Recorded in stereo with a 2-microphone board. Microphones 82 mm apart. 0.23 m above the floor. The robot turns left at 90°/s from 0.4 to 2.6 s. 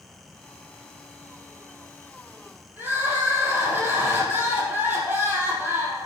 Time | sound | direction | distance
2.8 | crying | 25° right (ahead or behind) | 3 m